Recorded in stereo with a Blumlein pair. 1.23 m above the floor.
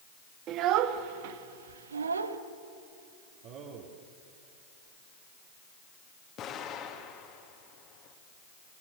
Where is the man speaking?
40° right, 2.5 m.